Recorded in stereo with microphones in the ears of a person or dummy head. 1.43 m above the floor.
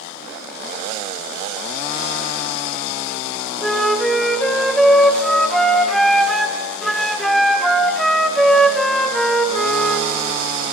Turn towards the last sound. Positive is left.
turn(degrees=0)  # may be behind; listen again after turning